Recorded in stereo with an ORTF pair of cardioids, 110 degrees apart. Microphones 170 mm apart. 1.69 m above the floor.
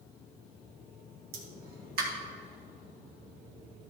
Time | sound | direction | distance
1.3 | a pop | 65° right | 1.9 m